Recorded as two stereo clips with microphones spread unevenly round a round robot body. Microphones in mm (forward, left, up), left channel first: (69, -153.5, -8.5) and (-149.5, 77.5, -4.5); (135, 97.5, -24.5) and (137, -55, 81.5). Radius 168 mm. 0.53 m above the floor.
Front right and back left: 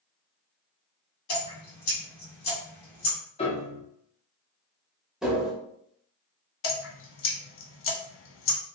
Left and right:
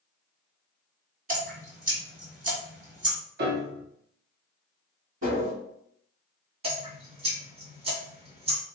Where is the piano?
85° right, 0.7 m.